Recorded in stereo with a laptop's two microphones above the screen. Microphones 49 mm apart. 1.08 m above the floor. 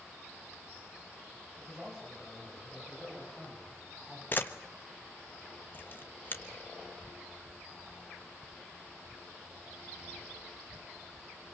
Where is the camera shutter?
40° left (ahead or behind), 1.3 m.